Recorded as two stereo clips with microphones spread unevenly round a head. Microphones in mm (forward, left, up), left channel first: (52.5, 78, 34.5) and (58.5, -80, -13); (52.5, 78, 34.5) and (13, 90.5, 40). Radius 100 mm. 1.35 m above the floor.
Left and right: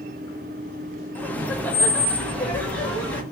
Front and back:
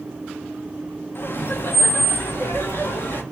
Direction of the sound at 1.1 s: 15° left.